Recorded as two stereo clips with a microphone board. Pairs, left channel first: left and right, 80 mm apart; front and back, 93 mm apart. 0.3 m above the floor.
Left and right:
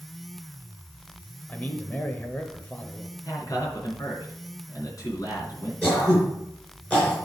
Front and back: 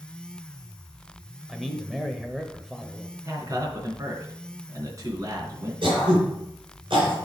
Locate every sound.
1.5 s a man speaking: 90° left, 0.8 m
3.2 s a man speaking: 130° left, 3 m
5.8 s throat clearing: 160° left, 4 m